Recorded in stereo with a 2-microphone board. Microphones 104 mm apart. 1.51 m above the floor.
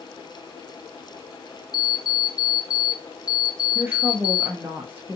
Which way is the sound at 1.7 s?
35° left (ahead or behind).